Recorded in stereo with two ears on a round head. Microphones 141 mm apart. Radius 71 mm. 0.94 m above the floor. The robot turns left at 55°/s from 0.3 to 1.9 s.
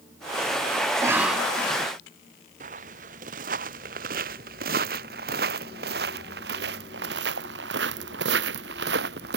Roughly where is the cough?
Behind right.